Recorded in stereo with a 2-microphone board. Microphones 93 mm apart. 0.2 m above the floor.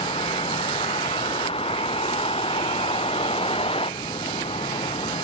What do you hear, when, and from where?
0.0 s a vehicle: 85° left; by 5.2 s 80° left